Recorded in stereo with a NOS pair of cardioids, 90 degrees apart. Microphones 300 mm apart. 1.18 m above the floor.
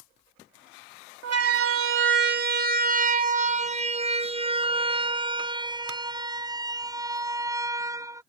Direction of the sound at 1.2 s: 60° right.